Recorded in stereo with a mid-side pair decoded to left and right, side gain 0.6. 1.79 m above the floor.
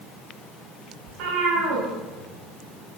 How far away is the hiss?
I don't hear a hiss.